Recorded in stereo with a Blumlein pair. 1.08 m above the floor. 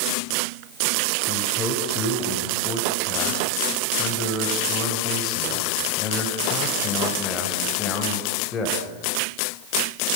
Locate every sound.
1.3 s a man speaking: 20° left, 5.5 m